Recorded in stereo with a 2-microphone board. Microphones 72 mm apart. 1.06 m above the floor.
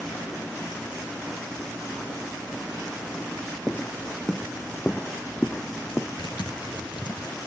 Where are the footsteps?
10° left (ahead or behind); by 6.1 s 20° left (ahead or behind).